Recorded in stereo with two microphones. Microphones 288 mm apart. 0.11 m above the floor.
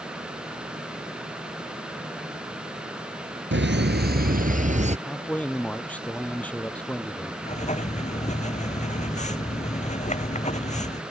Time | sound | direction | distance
3.5 | laughter | 40° right (ahead or behind) | ?
5.1 | a man speaking | 5° left (ahead or behind) | ?
7.4 | writing | 25° left (ahead or behind) | ?